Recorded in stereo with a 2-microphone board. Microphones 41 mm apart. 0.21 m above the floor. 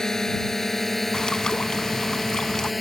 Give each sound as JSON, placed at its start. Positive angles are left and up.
{"t": 0.0, "sound": "a drone", "side_deg": 15}
{"t": 1.1, "sound": "a bird", "side_deg": 20}